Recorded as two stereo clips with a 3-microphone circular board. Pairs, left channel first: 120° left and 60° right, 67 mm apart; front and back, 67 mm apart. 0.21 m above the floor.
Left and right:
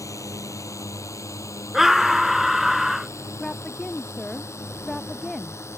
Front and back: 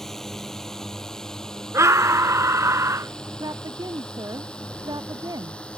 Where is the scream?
145° right.